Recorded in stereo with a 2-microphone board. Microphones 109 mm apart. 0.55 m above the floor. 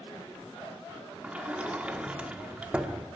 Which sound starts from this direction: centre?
A sliding door, at 1.2 s.